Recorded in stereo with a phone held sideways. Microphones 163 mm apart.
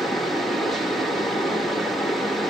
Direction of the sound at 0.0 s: Centre (ahead or behind).